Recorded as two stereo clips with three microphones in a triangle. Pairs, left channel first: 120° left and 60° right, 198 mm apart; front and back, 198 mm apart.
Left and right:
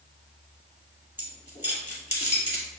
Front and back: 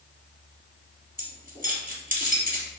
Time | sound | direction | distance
1.2 | keys jangling | 155° left | 1.5 m